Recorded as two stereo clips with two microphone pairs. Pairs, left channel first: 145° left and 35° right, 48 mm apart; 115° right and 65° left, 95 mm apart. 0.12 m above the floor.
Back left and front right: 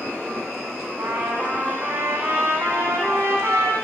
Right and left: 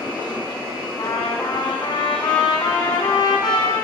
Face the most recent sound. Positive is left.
turn(degrees=-75)